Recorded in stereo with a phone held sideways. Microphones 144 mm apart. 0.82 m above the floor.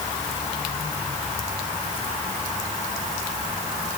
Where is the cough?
No cough in this recording.